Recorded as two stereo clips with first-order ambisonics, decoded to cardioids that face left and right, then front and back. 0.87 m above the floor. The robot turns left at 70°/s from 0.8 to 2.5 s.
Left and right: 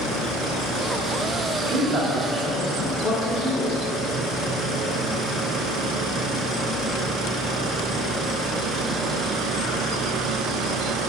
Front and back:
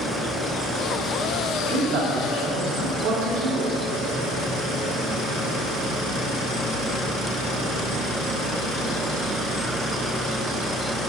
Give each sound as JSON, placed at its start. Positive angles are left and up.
{"t": 1.6, "sound": "a man speaking", "azimuth_deg": -135, "distance_m": 1.7}